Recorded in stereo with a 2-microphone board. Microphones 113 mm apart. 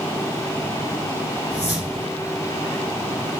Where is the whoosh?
15° right (ahead or behind), 2 m.